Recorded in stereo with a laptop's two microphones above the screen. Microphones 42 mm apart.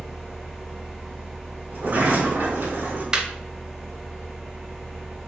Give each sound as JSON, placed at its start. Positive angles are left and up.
{"t": 0.0, "sound": "a fan", "side_deg": -10, "distance_m": 1.2}
{"t": 1.7, "sound": "a sliding door", "side_deg": -45, "distance_m": 1.5}
{"t": 3.1, "sound": "laughter", "side_deg": -20, "distance_m": 0.7}